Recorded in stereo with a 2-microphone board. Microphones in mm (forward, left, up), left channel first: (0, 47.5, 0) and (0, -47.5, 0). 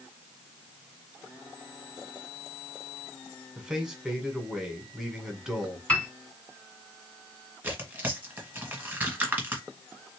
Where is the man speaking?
5° right (ahead or behind), 1.6 m.